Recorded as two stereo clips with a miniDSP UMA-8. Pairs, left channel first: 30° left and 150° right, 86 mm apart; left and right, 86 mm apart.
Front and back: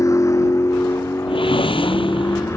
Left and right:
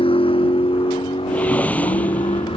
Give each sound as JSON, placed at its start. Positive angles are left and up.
{"t": 0.0, "sound": "a vehicle", "azimuth_deg": 85}
{"t": 1.3, "sound": "a whoosh", "azimuth_deg": 15}